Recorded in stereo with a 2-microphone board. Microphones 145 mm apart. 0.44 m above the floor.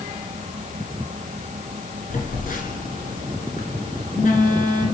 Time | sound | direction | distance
2.1 | a phone buzzing | 70° left (ahead or behind) | 1.8 m